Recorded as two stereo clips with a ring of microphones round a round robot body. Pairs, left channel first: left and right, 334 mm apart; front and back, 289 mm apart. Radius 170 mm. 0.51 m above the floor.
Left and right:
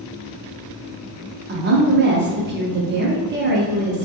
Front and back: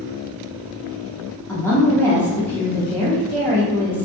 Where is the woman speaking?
75° right, 0.8 m.